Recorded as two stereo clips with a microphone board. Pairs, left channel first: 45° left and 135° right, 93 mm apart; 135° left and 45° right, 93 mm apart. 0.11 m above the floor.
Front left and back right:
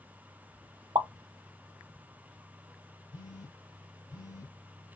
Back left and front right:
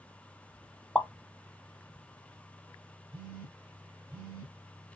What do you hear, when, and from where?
0.9 s a pop: 150° right, 0.5 m
3.1 s a phone buzzing: 20° left, 2.5 m